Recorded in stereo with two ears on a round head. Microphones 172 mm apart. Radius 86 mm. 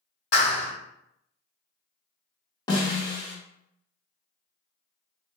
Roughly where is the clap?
Left.